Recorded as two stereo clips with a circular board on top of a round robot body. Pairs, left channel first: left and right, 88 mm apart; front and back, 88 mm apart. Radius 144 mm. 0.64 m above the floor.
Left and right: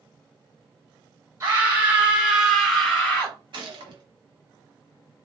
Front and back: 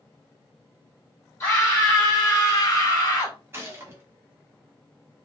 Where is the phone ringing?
I don't hear a phone ringing.